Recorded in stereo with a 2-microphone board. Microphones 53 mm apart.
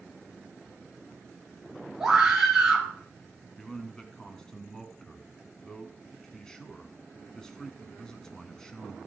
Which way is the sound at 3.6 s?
10° left (ahead or behind).